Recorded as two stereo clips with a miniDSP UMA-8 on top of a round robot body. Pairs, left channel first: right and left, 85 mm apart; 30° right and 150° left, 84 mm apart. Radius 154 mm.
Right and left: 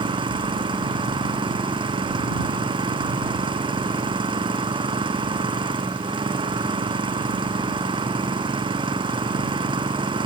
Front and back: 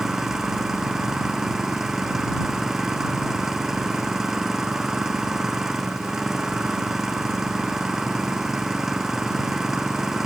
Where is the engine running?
65° left.